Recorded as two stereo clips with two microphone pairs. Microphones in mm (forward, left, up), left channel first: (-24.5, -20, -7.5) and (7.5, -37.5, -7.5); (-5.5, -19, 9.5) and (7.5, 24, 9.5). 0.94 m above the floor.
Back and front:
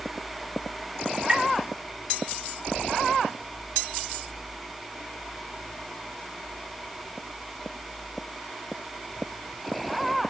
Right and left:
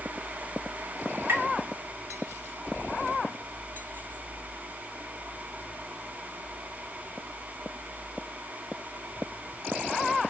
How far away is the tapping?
About 2.5 m.